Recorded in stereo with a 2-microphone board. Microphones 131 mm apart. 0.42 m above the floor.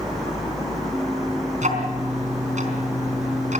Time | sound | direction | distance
1.6 | ticking | 70° right (ahead or behind) | 4 m